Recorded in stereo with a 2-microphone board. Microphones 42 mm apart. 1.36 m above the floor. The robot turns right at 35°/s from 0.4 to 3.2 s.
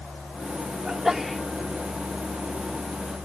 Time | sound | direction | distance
0.8 | a sneeze | 20° right (ahead or behind) | ?